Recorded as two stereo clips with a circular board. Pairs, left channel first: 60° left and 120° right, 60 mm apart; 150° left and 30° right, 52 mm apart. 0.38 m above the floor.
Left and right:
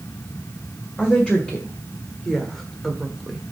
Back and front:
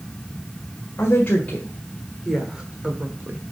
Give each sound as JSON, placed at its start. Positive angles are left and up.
{"t": 1.0, "sound": "a woman speaking", "azimuth_deg": 125, "distance_m": 1.9}